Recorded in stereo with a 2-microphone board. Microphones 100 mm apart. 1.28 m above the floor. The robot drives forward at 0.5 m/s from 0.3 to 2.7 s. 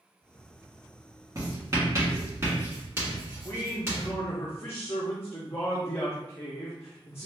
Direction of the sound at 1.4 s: 35° right (ahead or behind).